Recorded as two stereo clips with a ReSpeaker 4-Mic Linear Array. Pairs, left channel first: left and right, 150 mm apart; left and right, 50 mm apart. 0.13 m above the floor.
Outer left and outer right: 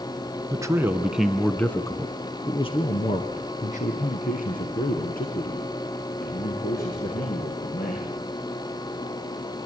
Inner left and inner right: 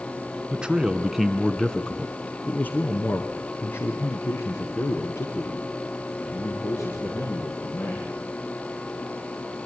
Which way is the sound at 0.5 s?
20° right (ahead or behind).